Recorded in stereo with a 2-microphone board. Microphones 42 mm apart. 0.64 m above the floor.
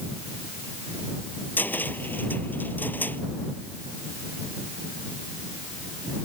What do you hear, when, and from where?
1.6 s a cupboard door: 50° left (ahead or behind)